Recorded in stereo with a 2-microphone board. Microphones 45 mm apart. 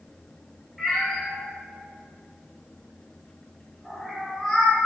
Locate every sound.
0.8 s a cat meowing: 5° left (ahead or behind), 1.2 m